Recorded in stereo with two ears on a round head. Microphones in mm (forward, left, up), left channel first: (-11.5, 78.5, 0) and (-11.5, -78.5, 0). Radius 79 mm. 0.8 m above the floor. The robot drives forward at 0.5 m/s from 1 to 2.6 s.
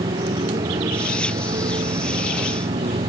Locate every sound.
0.0 s a motorcycle: 30° right (ahead or behind)